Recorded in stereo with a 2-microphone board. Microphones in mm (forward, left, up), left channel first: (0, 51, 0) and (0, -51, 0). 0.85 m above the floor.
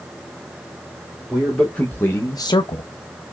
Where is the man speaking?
5° left (ahead or behind), 1.4 m; by 2.8 s 65° left (ahead or behind), 0.6 m.